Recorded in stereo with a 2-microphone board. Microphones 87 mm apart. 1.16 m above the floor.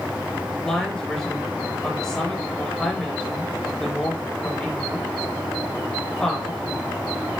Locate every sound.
0.6 s a woman speaking: 10° left (ahead or behind), 4 m